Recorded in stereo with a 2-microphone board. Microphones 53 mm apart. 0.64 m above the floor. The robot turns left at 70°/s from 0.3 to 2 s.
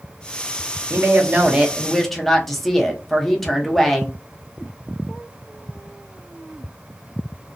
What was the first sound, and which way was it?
A woman speaking, 110° right.